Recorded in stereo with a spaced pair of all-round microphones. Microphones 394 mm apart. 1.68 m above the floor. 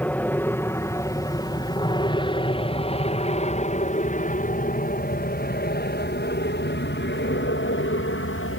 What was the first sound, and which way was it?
An aircraft, 5° left (ahead or behind).